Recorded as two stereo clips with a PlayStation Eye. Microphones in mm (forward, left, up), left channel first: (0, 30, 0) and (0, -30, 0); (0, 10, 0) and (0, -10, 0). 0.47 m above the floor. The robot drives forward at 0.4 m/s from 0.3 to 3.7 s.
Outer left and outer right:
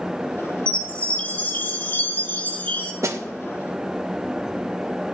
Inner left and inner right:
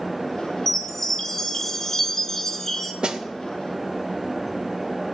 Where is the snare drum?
55° right (ahead or behind), 0.5 m; by 3.2 s 50° right (ahead or behind), 0.5 m.